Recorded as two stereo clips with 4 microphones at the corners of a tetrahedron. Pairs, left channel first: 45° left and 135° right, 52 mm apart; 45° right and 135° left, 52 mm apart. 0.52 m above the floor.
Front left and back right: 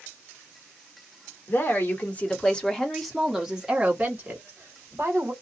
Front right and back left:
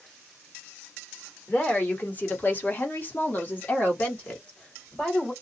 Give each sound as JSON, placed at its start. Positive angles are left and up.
{"t": 1.5, "sound": "a woman speaking", "azimuth_deg": 10, "distance_m": 1.4}